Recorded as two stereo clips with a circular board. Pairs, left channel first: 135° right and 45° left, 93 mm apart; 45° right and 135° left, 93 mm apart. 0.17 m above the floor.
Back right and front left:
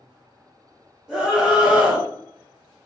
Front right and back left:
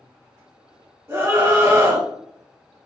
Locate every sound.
1.1 s a scream: 115° left, 1.5 m